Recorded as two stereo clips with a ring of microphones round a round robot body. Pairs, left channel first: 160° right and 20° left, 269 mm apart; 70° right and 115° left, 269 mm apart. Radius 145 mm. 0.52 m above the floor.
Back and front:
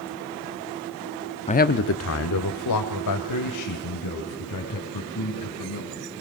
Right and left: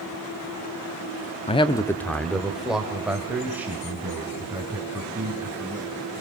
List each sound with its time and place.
1.5 s a man speaking: 110° right, 0.8 m; by 5.9 s 165° right, 6 m